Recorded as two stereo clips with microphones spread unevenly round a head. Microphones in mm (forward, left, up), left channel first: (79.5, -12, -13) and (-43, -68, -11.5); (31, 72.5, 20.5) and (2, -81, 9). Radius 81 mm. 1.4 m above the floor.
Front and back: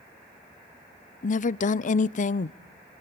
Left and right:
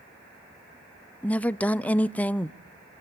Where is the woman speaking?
5° right, 0.5 m.